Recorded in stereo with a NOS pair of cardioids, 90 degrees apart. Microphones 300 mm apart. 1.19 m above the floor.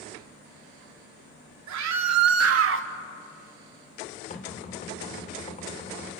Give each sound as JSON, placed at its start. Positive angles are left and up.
{"t": 1.7, "sound": "a scream", "azimuth_deg": -70, "distance_m": 2.5}
{"t": 4.3, "sound": "knocking", "azimuth_deg": 25, "distance_m": 3.0}